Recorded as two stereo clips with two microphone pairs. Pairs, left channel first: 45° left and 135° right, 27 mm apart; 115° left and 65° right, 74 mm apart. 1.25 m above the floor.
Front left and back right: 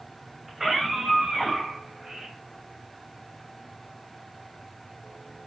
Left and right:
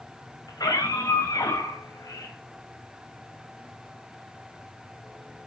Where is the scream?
145° left, 5.5 m; by 2.4 s 155° left, 7 m.